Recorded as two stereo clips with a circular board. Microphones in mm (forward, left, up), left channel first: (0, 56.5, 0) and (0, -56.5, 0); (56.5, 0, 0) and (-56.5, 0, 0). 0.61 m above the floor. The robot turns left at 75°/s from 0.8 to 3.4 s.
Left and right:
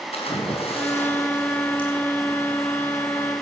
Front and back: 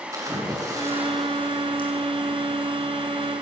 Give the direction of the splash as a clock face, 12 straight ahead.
8 o'clock.